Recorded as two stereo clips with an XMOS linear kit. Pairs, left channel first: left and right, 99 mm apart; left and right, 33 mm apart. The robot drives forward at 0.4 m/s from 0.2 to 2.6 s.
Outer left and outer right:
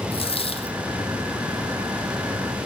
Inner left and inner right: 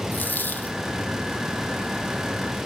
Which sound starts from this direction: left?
A dropped coin, at 0.1 s.